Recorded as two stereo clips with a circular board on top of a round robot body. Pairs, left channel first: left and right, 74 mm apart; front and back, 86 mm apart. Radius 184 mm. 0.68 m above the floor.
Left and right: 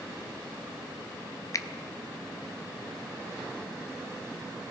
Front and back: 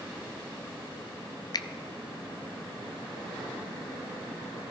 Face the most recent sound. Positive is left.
turn(degrees=45)